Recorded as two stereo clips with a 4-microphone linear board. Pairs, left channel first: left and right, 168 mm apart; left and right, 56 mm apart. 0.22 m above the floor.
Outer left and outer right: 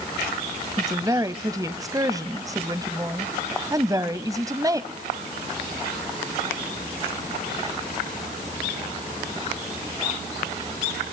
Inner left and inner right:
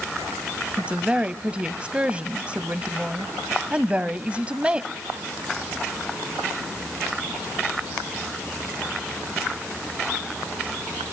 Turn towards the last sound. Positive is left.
turn(degrees=-20)  # may be behind; listen again after turning